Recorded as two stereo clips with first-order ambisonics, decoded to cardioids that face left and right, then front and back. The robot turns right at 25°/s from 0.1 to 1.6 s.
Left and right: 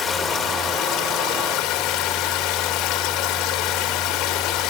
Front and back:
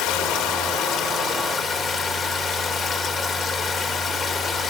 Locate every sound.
0.0 s running water: 20° left, 2 m; by 4.7 s 55° left, 2 m